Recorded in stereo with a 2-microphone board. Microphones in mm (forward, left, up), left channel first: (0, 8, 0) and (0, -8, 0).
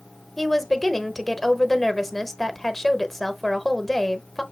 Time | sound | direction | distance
0.4 | a woman speaking | 15° left (ahead or behind) | 0.9 m